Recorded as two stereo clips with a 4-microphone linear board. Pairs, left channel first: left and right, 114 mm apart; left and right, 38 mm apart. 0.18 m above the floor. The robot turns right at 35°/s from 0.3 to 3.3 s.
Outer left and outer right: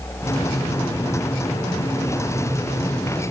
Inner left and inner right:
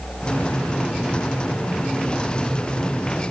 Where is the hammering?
No hammering in this recording.